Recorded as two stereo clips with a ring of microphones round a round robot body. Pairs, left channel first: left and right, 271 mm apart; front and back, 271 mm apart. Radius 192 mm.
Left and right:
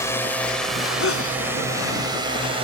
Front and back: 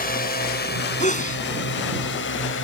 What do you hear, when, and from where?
0.0 s a drone: 20° left; by 2.6 s 30° right
1.0 s a sneeze: 60° left